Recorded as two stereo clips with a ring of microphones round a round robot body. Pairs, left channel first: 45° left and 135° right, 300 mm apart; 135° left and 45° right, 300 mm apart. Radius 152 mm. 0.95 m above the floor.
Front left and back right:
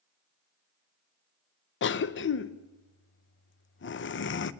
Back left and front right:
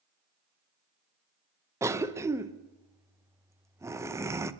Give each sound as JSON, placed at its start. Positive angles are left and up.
{"t": 1.8, "sound": "a cough", "azimuth_deg": 30, "distance_m": 0.8}